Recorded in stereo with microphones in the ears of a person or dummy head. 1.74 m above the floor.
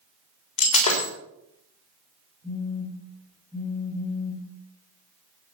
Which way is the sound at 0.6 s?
40° left (ahead or behind).